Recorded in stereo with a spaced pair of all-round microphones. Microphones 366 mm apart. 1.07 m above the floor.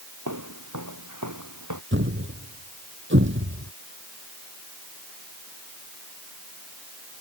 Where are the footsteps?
50° right (ahead or behind); by 1.8 s 55° right (ahead or behind).